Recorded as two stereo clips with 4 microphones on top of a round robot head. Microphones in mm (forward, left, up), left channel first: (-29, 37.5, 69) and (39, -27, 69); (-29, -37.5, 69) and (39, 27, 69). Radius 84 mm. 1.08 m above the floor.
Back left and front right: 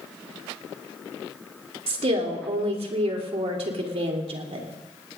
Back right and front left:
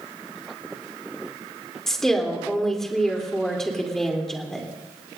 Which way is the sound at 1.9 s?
50° right.